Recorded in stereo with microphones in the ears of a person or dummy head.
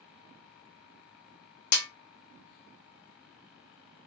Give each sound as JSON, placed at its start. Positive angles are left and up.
{"t": 1.7, "sound": "a snare drum", "side_deg": 50, "distance_m": 0.8}